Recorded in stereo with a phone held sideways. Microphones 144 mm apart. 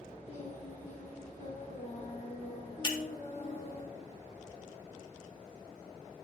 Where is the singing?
55° left (ahead or behind), 2 m.